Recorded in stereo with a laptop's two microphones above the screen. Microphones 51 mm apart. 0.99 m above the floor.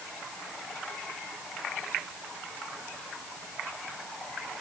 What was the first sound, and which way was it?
Only background noise.